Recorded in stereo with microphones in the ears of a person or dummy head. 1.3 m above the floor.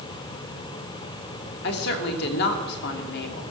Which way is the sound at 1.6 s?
60° left (ahead or behind).